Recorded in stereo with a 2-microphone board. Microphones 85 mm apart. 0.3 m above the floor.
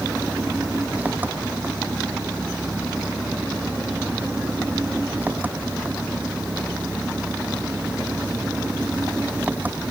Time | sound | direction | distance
0.0 | an engine running | 20° right (ahead or behind) | ?